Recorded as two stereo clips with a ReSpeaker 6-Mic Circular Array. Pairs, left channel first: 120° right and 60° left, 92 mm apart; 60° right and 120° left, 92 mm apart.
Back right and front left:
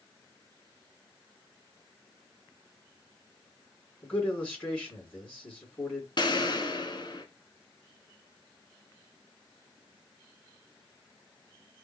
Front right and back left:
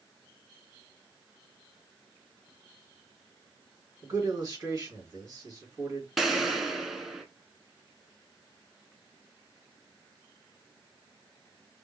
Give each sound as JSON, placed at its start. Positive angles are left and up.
{"t": 4.0, "sound": "a man speaking", "azimuth_deg": 170, "distance_m": 2.5}
{"t": 6.2, "sound": "an explosion", "azimuth_deg": -150, "distance_m": 1.1}